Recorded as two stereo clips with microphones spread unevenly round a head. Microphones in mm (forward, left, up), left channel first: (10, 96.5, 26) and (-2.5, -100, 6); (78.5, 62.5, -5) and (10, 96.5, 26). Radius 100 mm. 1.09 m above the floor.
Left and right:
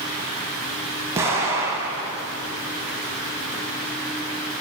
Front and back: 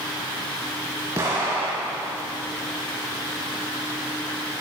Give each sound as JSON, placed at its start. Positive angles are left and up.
{"t": 1.1, "sound": "an explosion", "azimuth_deg": -175, "distance_m": 1.5}